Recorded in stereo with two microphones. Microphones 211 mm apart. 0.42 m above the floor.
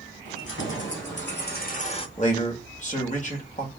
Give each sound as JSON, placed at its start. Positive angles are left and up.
{"t": 0.2, "sound": "keys jangling", "side_deg": 65, "distance_m": 2.0}
{"t": 2.2, "sound": "a man speaking", "side_deg": 35, "distance_m": 1.4}